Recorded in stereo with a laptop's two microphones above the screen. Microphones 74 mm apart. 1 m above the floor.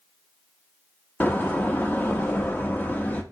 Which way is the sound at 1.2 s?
25° left (ahead or behind).